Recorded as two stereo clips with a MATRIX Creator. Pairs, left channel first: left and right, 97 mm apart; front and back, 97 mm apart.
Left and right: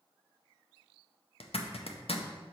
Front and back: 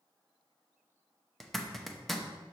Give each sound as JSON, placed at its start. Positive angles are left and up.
{"t": 1.4, "sound": "a zipper", "azimuth_deg": 90, "distance_m": 0.6}